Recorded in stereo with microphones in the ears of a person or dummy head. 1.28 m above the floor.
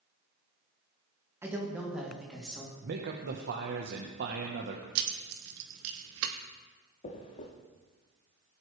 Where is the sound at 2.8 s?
50° right (ahead or behind), 1.1 m.